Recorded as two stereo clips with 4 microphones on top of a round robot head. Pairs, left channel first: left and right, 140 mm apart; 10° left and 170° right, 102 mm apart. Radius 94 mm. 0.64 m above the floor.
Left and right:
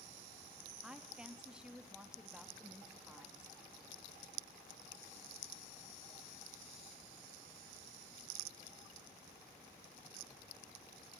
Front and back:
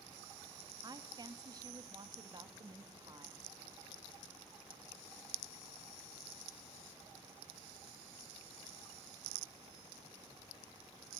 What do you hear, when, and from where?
0.8 s a woman speaking: 170° right, 0.8 m